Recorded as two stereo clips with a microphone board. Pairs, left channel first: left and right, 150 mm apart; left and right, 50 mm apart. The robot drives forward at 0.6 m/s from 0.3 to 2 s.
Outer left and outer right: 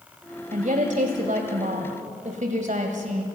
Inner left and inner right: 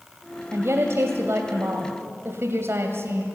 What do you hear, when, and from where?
0.5 s a woman speaking: 55° right (ahead or behind), 1.9 m